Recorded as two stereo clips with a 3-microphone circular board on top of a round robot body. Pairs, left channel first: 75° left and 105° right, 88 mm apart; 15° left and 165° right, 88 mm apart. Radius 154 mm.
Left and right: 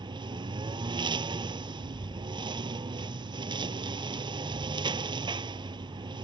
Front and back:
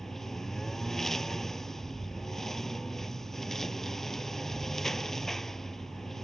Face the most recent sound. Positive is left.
turn(degrees=-70)